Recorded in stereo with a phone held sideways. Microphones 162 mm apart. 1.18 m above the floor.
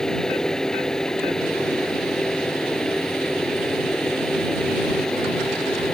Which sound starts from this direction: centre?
A fan, at 0.0 s.